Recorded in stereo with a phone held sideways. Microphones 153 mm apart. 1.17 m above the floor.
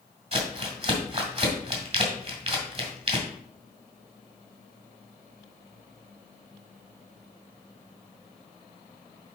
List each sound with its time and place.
0.3 s crumpling: 40° right (ahead or behind), 1.9 m